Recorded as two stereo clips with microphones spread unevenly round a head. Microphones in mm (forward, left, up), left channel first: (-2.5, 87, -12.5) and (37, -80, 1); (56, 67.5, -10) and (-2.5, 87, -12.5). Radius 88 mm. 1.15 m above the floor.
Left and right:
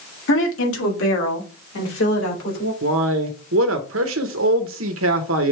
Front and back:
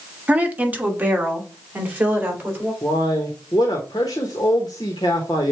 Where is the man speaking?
75° right, 0.8 m.